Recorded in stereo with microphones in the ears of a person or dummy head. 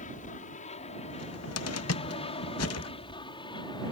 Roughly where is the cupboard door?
Left.